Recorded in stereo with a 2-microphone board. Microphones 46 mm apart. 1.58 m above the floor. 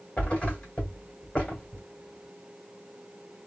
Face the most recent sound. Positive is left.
turn(degrees=25)  # may be behind; listen again after turning